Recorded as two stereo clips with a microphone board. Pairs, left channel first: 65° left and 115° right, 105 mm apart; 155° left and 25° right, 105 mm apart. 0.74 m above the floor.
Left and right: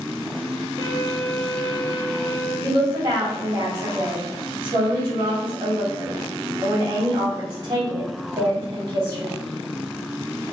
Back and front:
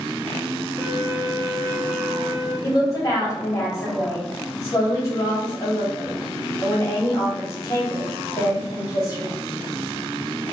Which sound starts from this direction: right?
A violin, at 0.8 s.